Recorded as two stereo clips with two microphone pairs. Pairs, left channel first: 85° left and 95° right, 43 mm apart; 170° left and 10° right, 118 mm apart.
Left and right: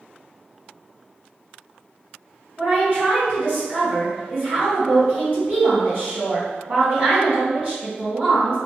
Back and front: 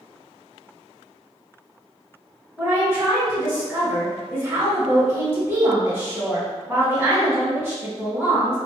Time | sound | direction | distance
2.6 | a woman speaking | 65° right | 1.6 m